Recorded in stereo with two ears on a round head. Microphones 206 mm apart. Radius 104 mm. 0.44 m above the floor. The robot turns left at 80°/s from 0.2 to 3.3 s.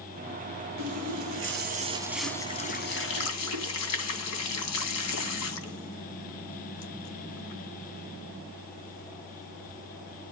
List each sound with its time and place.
0.8 s a running tap: 60° right (ahead or behind), 2.5 m; by 10.3 s 75° left (ahead or behind), 2.5 m